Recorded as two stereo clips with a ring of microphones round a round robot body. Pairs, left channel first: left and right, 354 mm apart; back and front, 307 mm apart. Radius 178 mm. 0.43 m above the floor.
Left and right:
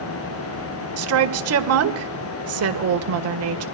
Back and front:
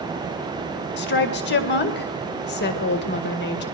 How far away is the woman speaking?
About 1.9 m.